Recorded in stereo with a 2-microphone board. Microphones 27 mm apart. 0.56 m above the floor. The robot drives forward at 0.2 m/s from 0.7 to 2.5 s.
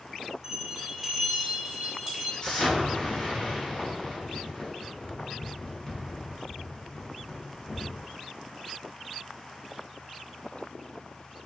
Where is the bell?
20° right (ahead or behind), 0.6 m; by 2.3 s 15° right (ahead or behind), 0.9 m.